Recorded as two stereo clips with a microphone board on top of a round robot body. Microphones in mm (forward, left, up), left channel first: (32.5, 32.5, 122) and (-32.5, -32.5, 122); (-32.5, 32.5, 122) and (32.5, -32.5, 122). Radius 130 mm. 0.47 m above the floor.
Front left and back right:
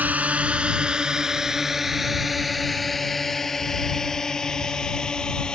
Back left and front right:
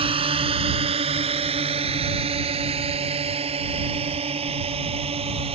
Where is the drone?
60° right; by 5.5 s 35° right.